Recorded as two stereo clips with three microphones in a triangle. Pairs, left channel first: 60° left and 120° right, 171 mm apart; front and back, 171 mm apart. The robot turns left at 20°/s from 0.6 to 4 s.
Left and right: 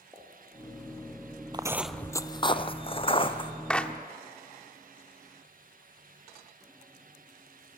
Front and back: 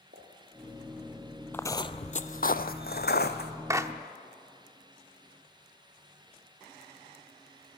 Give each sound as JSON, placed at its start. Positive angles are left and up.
{"t": 0.1, "sound": "a pop", "azimuth_deg": 170, "distance_m": 6.0}
{"t": 1.5, "sound": "footsteps", "azimuth_deg": -70, "distance_m": 0.6}
{"t": 3.7, "sound": "a clap", "azimuth_deg": 135, "distance_m": 0.9}